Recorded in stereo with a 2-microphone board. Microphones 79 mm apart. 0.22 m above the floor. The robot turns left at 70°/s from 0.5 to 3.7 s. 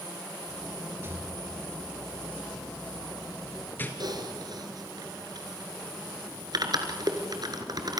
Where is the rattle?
30° right (ahead or behind), 2.5 m; by 3.9 s 25° left (ahead or behind), 2.5 m.